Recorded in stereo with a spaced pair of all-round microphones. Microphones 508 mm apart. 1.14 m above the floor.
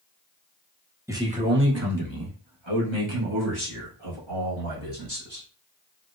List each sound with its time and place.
1.1 s a man speaking: 5° right (ahead or behind), 1.0 m; by 5.5 s 85° right, 2.5 m